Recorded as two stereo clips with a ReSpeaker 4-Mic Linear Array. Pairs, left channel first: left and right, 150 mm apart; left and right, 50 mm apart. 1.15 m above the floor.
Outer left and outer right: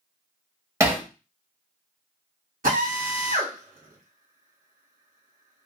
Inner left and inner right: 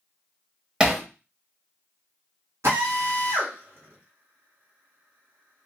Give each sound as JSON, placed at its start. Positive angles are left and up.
{"t": 0.8, "sound": "hammering", "side_deg": -20, "distance_m": 0.8}
{"t": 2.6, "sound": "a drill", "side_deg": -65, "distance_m": 1.5}